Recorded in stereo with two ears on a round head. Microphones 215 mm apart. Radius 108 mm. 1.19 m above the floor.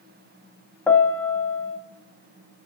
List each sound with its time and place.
0.9 s a piano: 5° left (ahead or behind), 0.7 m